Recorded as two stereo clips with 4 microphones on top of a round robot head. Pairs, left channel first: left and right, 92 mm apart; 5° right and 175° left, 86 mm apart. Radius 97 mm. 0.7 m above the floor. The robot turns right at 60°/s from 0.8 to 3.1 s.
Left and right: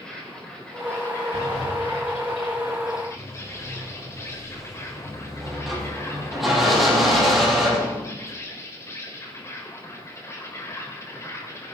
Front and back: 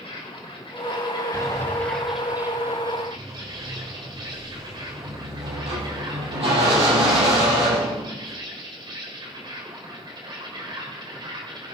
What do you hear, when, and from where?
0.0 s an insect: 10° left, 4 m; by 11.8 s 150° left, 4 m
1.3 s a sliding door: 75° left, 6 m; by 8.3 s straight behind, 6 m